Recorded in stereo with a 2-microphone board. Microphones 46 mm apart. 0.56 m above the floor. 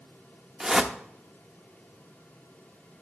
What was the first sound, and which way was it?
A whoosh, 10° right (ahead or behind).